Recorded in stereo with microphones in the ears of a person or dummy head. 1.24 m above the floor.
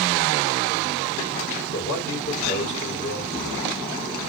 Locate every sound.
1.7 s a man speaking: 35° left (ahead or behind), 3 m